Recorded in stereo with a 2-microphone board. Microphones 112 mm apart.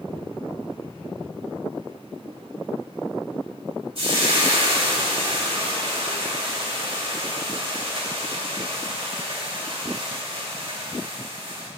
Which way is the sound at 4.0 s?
60° right (ahead or behind).